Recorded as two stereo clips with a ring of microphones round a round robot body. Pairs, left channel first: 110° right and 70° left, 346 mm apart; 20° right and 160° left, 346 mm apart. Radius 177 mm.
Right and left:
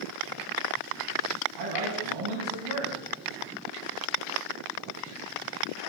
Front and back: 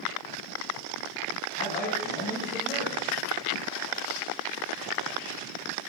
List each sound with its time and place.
1.6 s a man speaking: 40° left, 4.5 m